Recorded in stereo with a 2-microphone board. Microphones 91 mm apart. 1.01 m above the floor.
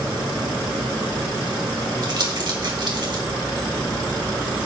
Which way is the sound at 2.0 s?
55° right (ahead or behind).